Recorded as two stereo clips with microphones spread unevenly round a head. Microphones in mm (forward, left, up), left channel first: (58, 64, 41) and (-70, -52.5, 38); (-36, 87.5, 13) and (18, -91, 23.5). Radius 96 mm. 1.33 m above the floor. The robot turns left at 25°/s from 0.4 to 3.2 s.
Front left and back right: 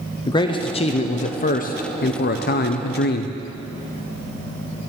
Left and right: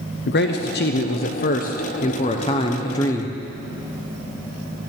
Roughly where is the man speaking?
Left.